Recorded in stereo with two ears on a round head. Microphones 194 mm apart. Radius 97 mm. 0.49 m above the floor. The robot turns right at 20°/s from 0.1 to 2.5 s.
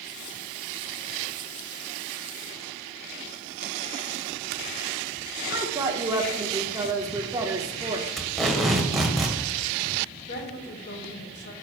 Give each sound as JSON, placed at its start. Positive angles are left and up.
{"t": 5.5, "sound": "a woman speaking", "side_deg": -15, "distance_m": 1.2}
{"t": 8.2, "sound": "tape being pulled", "side_deg": 0, "distance_m": 1.6}
{"t": 10.3, "sound": "a woman speaking", "side_deg": 55, "distance_m": 2.5}